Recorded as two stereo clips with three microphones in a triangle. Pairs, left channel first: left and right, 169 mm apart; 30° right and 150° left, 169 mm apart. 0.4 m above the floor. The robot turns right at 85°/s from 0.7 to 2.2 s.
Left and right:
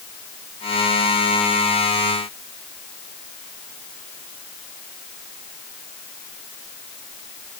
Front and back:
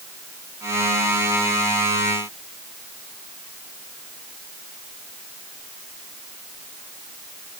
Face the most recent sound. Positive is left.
No sound to turn to.